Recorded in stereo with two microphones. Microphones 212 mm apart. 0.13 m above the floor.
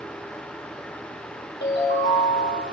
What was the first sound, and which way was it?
A ringtone, 60° left (ahead or behind).